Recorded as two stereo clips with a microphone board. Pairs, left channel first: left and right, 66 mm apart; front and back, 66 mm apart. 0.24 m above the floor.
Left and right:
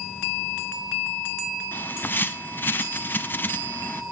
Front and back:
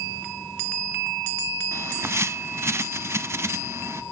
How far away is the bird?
About 0.6 m.